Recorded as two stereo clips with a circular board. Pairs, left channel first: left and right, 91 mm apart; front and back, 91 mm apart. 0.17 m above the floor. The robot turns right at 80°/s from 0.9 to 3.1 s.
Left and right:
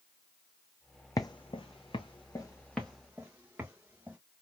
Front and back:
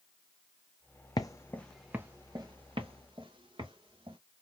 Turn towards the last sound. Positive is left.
turn(degrees=-165)